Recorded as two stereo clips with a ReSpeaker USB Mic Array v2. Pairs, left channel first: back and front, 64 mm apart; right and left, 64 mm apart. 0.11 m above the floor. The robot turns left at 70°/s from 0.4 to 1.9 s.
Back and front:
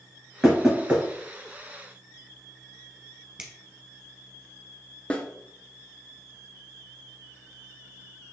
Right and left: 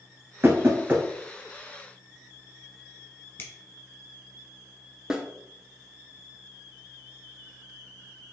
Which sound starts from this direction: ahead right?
A finger snap, at 3.4 s.